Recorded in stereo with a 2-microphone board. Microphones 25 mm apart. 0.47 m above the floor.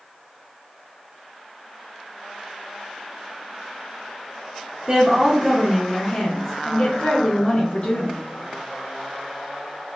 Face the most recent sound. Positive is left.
turn(degrees=60)  # may be behind; listen again after turning